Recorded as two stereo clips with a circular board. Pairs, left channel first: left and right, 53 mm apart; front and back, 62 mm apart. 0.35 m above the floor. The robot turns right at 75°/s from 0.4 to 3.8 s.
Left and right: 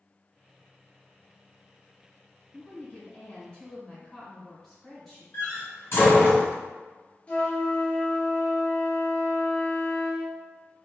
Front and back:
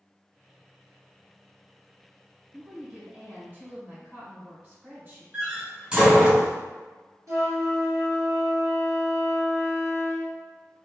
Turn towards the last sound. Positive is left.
turn(degrees=155)